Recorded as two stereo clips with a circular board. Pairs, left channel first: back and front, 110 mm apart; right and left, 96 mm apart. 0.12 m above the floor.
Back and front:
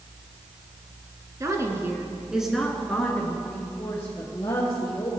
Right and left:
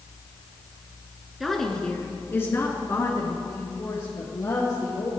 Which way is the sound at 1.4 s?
5° left.